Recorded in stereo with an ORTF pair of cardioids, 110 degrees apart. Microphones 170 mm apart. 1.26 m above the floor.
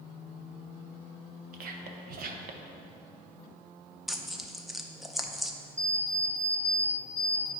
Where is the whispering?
60° right, 0.9 m.